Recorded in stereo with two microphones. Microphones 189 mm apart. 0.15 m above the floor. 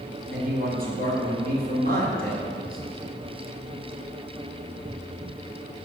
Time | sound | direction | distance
0.3 | a man speaking | 50° right (ahead or behind) | 2.5 m